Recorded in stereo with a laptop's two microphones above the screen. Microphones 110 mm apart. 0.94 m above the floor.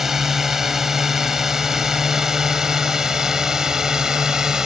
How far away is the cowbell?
I don't hear a cowbell.